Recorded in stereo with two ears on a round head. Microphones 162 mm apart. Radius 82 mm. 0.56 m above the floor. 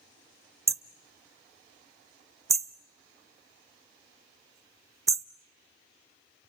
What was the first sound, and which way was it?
Hammering, 15° right (ahead or behind).